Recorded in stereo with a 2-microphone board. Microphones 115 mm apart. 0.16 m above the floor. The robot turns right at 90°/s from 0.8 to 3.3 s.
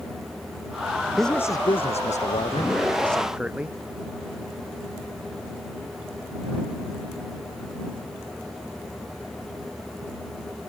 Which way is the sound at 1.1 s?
5° right.